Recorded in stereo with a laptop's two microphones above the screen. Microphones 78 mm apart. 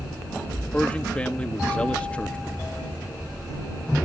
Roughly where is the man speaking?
Centre.